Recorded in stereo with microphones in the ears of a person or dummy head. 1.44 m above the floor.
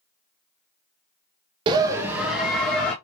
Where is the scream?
30° right (ahead or behind), 0.6 m; by 2.9 s 5° left (ahead or behind), 1.2 m.